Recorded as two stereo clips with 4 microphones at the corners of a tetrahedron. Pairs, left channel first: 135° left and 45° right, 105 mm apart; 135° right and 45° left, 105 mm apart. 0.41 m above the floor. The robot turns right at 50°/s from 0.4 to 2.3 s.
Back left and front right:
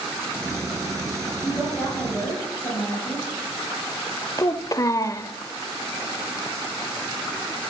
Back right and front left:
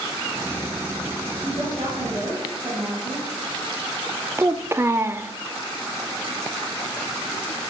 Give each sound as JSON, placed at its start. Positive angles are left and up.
{"t": 1.4, "sound": "a woman speaking", "azimuth_deg": 30, "distance_m": 5.5}
{"t": 4.4, "sound": "a child speaking", "azimuth_deg": 100, "distance_m": 0.5}